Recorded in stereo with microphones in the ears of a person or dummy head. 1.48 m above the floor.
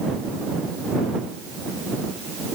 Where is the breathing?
No breathing in this recording.